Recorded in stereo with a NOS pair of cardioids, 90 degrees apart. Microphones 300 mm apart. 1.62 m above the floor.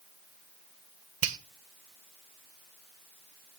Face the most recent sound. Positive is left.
turn(degrees=-45)